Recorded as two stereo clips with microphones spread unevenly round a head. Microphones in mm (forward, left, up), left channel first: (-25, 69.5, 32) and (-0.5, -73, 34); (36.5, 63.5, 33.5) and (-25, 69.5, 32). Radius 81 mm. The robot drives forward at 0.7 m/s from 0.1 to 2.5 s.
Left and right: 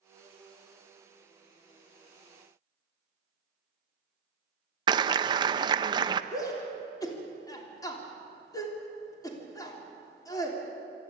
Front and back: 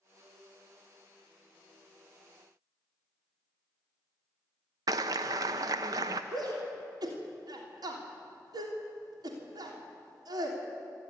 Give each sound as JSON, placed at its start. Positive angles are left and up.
{"t": 4.9, "sound": "a clap", "azimuth_deg": -140, "distance_m": 0.6}
{"t": 6.3, "sound": "a shout", "azimuth_deg": 165, "distance_m": 3.0}